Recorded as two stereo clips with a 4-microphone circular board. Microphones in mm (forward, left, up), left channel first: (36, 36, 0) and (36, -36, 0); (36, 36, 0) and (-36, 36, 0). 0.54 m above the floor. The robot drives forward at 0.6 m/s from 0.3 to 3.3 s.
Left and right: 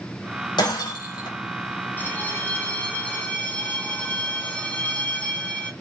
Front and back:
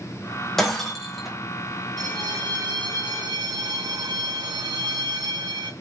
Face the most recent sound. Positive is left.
turn(degrees=160)